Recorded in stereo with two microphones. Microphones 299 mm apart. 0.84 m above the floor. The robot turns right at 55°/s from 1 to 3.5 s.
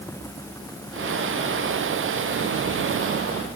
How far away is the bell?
I don't hear a bell.